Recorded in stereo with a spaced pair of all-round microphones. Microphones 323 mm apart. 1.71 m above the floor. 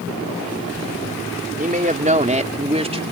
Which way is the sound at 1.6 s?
25° right (ahead or behind).